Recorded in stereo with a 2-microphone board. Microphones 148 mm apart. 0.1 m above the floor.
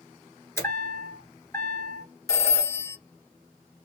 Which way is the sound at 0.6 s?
20° left (ahead or behind).